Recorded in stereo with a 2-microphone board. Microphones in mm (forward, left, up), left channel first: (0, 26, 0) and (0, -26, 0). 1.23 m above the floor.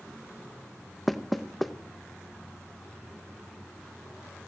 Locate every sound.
1.1 s knocking: centre (ahead or behind), 0.8 m